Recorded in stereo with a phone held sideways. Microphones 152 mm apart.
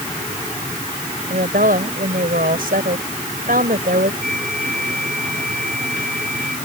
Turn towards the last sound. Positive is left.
turn(degrees=5)  # may be behind; listen again after turning